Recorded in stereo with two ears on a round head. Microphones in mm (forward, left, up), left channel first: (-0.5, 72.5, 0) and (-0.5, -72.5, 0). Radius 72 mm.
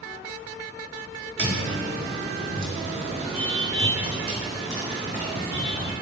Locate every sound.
1.4 s footsteps: 75° right (ahead or behind), 1.5 m; by 5.9 s 20° left (ahead or behind), 1.7 m